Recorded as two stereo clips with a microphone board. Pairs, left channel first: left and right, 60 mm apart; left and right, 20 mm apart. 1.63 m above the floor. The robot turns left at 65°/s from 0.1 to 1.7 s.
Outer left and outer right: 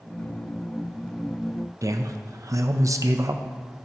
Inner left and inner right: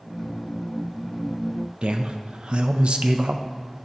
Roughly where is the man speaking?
Right.